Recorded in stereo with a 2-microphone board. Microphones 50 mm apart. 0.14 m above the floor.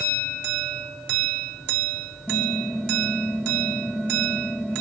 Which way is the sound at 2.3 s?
5° left (ahead or behind).